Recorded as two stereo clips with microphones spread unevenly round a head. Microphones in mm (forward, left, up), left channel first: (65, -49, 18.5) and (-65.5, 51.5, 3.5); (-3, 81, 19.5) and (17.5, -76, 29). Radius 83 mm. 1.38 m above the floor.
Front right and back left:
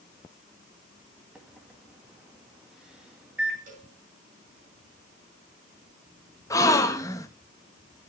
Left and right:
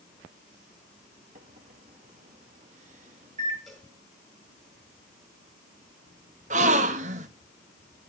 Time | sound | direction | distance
1.4 | a microwave | 130° right | 2.0 m
3.7 | a cowbell | 175° right | 7 m
6.5 | a gasp | 95° right | 0.8 m